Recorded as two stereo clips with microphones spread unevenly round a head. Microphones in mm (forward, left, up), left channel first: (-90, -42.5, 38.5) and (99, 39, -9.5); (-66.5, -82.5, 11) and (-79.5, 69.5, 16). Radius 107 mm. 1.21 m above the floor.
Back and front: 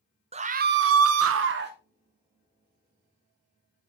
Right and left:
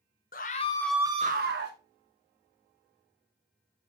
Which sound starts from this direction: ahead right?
A scream, at 0.3 s.